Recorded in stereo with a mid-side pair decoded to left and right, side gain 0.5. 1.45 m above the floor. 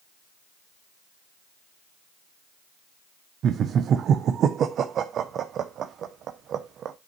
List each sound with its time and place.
3.4 s laughter: 55° right, 0.7 m